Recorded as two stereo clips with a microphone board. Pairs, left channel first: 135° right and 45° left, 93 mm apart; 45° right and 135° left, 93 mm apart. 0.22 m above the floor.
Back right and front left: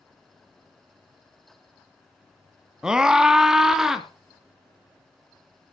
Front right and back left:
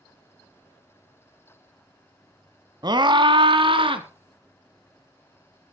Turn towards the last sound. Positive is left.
turn(degrees=130)